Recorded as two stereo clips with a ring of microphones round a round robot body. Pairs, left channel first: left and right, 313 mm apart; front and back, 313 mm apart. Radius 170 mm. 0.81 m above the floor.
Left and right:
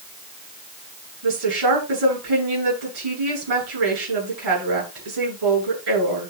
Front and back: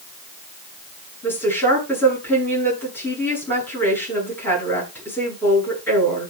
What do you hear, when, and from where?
1.2 s a woman speaking: 85° right, 10 m